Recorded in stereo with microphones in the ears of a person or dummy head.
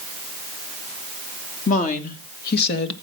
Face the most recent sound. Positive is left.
turn(degrees=55)  # may be behind; listen again after turning